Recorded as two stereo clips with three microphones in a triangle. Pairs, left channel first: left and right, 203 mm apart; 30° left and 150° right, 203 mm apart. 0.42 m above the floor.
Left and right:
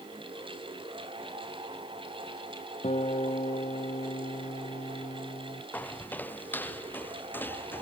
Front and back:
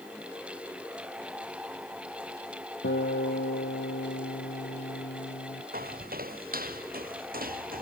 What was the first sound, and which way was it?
A guitar, 35° left.